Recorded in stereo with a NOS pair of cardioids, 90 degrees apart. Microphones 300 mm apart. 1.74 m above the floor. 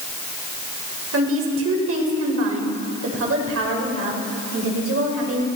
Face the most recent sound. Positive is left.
turn(degrees=-50)